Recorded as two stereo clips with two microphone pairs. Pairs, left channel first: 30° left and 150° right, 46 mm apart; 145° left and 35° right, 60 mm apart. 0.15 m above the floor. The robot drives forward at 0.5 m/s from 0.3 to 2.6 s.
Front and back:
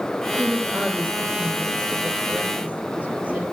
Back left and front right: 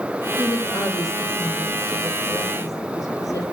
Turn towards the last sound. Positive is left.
turn(degrees=150)